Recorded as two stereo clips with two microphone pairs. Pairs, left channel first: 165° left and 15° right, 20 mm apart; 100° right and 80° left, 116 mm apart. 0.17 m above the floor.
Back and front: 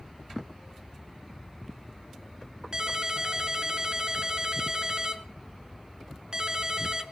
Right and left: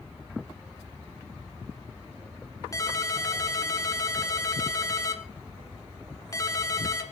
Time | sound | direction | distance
2.7 | a ringtone | 50° right | 1.2 m